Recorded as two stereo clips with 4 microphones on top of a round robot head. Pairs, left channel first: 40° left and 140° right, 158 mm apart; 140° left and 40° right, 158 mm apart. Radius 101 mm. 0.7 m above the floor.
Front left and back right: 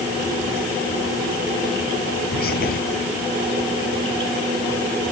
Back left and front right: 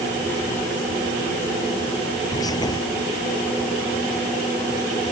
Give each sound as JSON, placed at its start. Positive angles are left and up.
{"t": 2.3, "sound": "whispering", "azimuth_deg": 70}